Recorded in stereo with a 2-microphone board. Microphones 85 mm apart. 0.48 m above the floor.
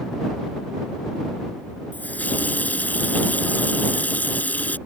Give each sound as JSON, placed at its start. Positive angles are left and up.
{"t": 1.9, "sound": "a running tap", "side_deg": 20}